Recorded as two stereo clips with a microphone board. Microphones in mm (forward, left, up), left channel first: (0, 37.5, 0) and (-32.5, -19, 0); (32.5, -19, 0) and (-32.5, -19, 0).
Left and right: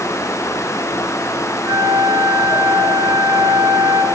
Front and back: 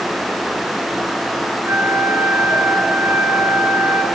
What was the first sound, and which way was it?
A flute, 130° right.